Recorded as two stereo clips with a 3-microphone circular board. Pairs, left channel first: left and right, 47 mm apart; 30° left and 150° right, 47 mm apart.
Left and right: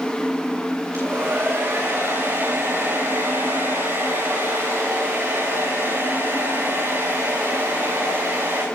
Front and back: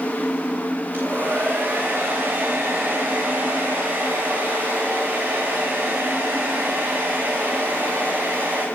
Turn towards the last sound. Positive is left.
turn(degrees=-100)